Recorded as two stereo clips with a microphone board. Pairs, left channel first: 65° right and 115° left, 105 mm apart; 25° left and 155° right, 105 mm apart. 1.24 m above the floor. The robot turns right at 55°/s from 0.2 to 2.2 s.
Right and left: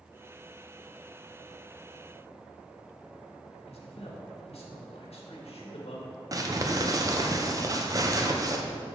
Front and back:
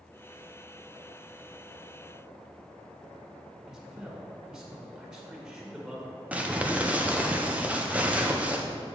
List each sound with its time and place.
3.7 s a man speaking: 75° right, 1.6 m
6.3 s crumpling: 135° left, 0.6 m